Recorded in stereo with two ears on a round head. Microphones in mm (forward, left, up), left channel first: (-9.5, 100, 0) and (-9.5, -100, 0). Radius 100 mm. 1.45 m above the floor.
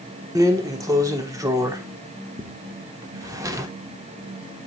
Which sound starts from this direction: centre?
A drawer, at 0.3 s.